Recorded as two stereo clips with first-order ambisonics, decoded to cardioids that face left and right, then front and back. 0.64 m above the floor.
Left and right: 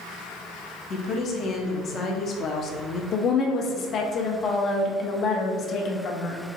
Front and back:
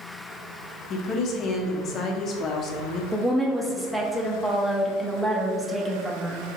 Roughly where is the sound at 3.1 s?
Left.